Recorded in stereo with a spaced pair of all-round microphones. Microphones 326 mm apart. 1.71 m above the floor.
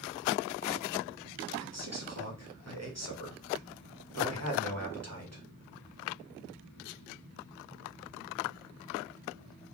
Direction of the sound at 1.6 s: 50° right (ahead or behind).